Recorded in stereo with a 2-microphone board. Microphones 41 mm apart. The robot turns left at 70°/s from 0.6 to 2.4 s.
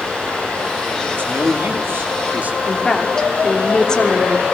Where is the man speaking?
50° right, 3.5 m; by 2.6 s 140° right, 3.5 m.